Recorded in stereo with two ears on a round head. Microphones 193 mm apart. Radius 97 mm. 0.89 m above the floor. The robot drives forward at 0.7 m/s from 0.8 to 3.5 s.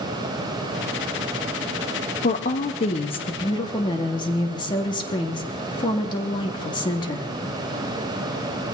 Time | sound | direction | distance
2.2 | a woman speaking | 40° left (ahead or behind) | 0.9 m